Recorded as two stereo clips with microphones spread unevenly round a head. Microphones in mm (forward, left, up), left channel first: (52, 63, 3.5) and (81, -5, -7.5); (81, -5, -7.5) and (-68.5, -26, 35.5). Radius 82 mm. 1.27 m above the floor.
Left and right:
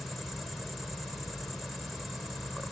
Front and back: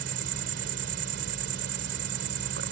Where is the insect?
160° right.